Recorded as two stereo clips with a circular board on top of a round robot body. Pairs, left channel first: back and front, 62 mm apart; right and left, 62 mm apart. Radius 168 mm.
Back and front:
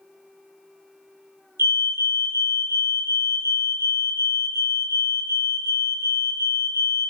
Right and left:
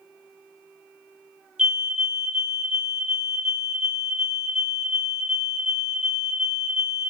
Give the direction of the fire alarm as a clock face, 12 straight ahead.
11 o'clock.